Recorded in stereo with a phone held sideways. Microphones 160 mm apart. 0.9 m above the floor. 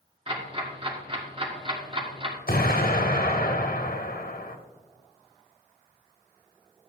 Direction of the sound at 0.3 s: 35° right (ahead or behind).